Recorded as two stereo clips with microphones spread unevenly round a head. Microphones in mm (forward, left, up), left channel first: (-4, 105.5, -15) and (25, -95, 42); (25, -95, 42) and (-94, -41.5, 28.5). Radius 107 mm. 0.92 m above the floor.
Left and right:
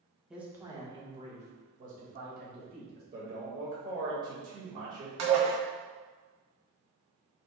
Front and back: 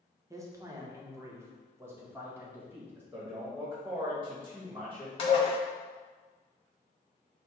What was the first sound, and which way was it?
A man speaking, 165° left.